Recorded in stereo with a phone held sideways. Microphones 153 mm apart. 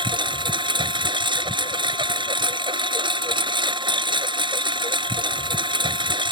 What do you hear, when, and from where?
0.0 s a lawn mower: 35° right (ahead or behind)